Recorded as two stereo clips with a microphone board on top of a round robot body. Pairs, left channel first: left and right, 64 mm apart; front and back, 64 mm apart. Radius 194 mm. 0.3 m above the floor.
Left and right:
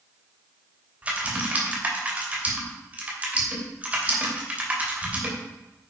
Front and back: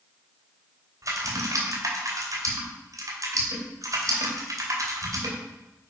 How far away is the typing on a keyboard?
About 2.5 m.